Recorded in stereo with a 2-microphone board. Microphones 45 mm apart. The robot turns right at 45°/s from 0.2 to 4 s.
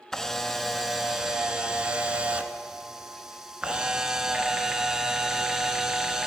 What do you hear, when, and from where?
0.1 s a camera shutter: 10° left (ahead or behind), 0.8 m; by 6.3 s 15° right (ahead or behind), 0.8 m